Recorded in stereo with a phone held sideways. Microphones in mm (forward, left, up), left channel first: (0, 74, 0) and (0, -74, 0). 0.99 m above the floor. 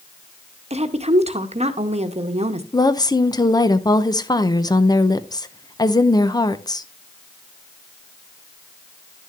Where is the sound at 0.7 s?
45° right (ahead or behind), 1.0 m.